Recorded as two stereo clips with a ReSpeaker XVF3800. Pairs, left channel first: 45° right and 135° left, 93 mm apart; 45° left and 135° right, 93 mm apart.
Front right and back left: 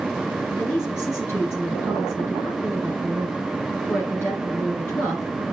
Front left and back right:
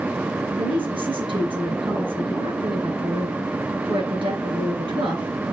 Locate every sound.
0.6 s a woman speaking: 110° right, 6.5 m